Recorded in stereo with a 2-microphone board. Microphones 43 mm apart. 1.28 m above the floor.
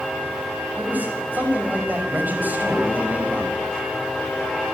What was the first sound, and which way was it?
A man speaking, 45° right (ahead or behind).